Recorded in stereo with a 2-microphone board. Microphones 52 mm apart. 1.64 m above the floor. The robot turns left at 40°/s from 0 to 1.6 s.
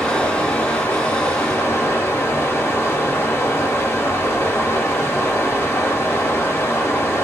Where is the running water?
150° left, 2 m; by 7.2 s 90° left, 2 m.